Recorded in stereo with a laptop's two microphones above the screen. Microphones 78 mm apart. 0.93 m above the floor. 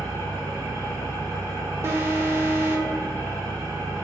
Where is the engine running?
60° right (ahead or behind), 1.5 m.